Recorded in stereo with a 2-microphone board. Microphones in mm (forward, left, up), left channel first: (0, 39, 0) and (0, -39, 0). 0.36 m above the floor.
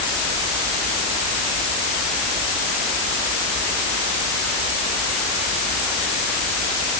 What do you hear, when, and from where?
Only background noise.